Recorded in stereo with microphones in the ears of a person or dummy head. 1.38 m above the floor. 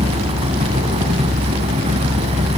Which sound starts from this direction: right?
A fan, at 0.0 s.